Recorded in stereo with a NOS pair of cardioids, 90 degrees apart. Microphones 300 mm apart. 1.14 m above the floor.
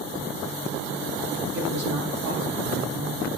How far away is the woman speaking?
About 2.0 m.